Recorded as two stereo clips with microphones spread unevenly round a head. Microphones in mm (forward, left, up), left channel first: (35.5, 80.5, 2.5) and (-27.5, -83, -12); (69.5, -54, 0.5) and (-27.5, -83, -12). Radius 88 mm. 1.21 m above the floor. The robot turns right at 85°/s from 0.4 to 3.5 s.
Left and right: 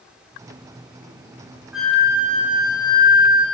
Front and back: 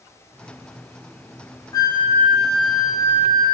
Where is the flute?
30° right, 0.8 m; by 3.5 s 115° left, 0.8 m.